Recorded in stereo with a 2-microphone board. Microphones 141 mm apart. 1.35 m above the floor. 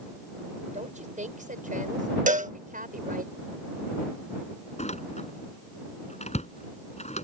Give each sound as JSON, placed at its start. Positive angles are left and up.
{"t": 0.7, "sound": "a woman speaking", "side_deg": -60}
{"t": 2.3, "sound": "a cowbell", "side_deg": -65}
{"t": 4.8, "sound": "a door slam", "side_deg": 50}